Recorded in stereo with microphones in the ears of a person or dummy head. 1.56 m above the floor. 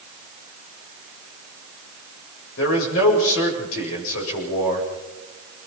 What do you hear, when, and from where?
2.6 s a man speaking: 85° left, 8 m